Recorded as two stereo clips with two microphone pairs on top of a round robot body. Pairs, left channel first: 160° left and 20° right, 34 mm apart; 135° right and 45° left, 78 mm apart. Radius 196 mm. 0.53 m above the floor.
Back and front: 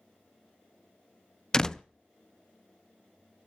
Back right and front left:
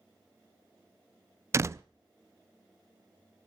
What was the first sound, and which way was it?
A door slam, 90° left.